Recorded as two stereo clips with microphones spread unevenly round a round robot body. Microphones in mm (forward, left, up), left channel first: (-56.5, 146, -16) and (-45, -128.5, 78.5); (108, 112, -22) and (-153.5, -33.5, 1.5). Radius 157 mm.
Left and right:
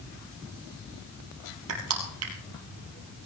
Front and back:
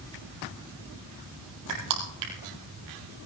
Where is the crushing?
120° right, 4 m.